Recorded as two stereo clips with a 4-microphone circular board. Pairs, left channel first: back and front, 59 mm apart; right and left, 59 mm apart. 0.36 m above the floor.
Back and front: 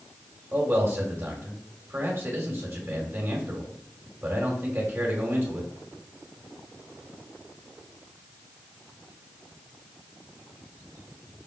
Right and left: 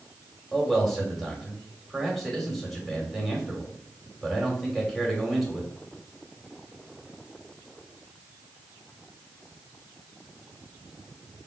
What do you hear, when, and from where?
0.5 s a man speaking: straight ahead, 1.7 m